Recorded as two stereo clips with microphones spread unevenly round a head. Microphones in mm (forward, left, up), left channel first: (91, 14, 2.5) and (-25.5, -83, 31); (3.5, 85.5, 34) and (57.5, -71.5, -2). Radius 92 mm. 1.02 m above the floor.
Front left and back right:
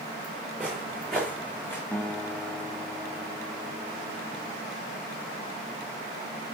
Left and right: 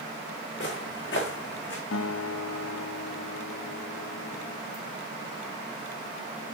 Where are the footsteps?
135° left, 4.5 m; by 1.8 s 120° left, 3.5 m.